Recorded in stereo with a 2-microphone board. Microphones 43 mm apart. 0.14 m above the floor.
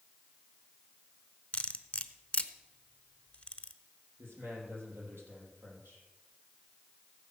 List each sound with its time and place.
1.5 s cutlery clinking: 30° left (ahead or behind), 1.0 m
4.2 s a man speaking: 75° right (ahead or behind), 5.5 m